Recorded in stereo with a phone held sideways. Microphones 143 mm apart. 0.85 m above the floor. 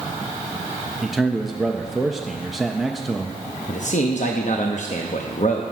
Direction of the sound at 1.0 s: Centre (ahead or behind).